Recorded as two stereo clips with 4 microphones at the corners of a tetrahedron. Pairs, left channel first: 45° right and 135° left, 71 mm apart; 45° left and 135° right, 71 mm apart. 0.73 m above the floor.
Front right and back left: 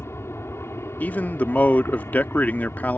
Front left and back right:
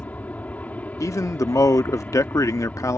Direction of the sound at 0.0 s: 15° right.